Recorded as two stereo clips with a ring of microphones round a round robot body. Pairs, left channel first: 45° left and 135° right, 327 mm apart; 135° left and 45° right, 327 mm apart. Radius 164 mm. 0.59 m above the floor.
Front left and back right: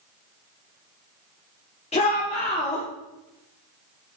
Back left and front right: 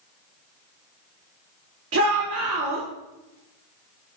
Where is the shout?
20° right, 1.4 m.